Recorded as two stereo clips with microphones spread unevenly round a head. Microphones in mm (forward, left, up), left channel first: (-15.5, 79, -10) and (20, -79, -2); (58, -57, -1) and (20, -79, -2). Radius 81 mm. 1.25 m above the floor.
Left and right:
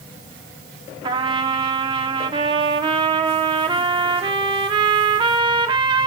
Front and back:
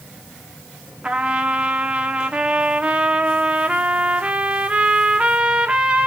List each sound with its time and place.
1.0 s a trumpet: 105° right, 0.9 m